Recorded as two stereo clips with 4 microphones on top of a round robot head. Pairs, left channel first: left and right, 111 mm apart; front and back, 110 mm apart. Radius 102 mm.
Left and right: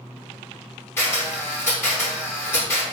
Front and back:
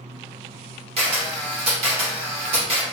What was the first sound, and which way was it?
A camera shutter, 165° left.